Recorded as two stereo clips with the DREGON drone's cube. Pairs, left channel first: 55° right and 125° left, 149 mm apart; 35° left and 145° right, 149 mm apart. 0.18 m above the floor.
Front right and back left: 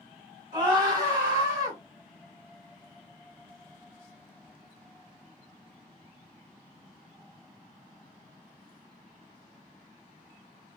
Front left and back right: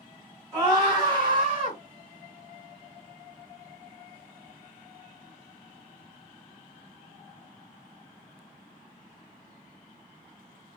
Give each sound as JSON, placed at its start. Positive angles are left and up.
{"t": 0.5, "sound": "a scream", "azimuth_deg": 155, "distance_m": 1.6}